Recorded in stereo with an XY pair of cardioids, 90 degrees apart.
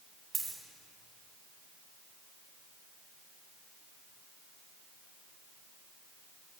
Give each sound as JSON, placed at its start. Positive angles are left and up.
{"t": 0.3, "sound": "a dropped coin", "azimuth_deg": -40, "distance_m": 2.5}